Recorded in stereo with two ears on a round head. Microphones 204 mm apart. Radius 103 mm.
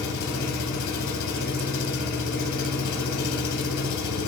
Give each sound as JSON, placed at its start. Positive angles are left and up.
{"t": 0.0, "sound": "an engine running", "side_deg": 85, "distance_m": 1.1}